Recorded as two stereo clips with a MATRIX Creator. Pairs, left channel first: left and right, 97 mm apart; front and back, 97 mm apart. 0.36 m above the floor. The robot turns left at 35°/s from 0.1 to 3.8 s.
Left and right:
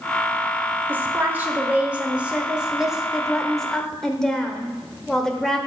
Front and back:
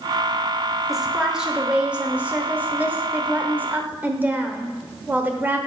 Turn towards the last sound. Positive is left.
turn(degrees=165)